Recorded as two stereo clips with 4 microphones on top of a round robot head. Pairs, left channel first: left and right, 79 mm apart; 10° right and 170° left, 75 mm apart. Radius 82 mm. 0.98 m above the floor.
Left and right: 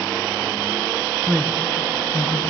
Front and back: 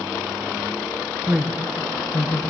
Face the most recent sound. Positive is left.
turn(degrees=55)